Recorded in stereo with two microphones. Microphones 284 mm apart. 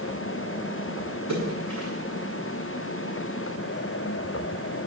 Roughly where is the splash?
Left.